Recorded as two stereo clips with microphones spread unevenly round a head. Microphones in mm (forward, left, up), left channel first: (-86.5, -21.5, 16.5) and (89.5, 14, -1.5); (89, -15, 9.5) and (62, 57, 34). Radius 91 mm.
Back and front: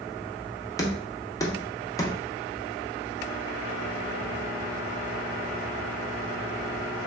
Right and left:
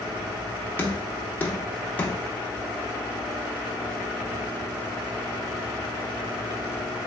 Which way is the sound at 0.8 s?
100° right.